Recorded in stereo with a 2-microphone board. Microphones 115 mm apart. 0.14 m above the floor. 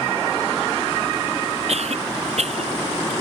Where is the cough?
65° right (ahead or behind).